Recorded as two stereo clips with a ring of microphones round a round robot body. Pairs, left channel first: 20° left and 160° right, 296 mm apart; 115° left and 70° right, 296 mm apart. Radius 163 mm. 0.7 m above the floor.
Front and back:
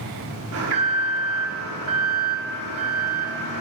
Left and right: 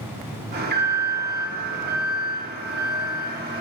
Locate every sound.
0.5 s an alarm: 125° right, 1.8 m